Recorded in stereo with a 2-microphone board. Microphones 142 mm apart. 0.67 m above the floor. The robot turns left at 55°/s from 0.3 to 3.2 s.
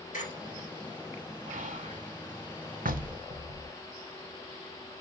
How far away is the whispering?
About 1.9 m.